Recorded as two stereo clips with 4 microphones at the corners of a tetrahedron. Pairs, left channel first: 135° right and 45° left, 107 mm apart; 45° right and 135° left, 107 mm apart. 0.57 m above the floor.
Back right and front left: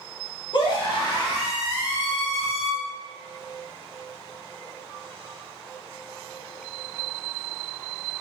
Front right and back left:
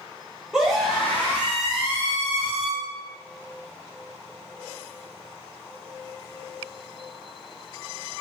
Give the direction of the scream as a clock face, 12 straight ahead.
5 o'clock.